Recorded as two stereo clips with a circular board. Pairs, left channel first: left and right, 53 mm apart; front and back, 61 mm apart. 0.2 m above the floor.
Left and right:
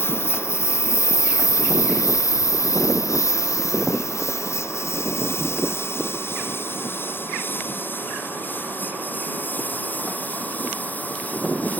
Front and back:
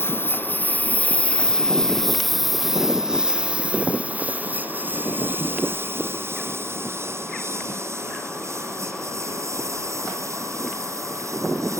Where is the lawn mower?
50° left; by 11.8 s 150° left.